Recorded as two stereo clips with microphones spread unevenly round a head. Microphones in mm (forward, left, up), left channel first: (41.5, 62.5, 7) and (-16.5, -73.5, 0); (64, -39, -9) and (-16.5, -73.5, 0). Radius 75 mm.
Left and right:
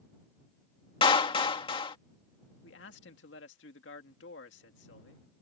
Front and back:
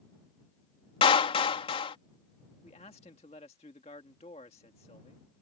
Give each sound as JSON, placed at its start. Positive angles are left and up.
{"t": 1.0, "sound": "a clap", "azimuth_deg": 10}
{"t": 2.6, "sound": "a man speaking", "azimuth_deg": 70}